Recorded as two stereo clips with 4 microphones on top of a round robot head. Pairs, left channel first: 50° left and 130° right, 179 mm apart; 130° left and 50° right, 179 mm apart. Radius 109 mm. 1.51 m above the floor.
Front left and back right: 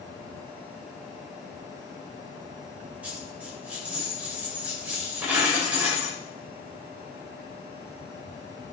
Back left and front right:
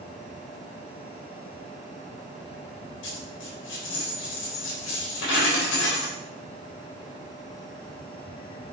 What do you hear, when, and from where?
3.0 s a dropped coin: 145° left, 3.5 m